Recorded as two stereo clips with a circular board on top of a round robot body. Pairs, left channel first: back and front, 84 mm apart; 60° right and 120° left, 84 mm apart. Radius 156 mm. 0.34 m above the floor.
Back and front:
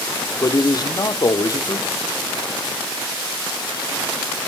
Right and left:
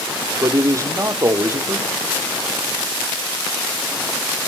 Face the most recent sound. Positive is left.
turn(degrees=160)